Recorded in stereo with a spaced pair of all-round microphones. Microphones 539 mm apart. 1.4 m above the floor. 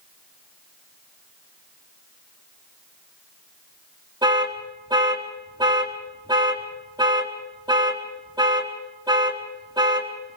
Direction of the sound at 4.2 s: 10° right (ahead or behind).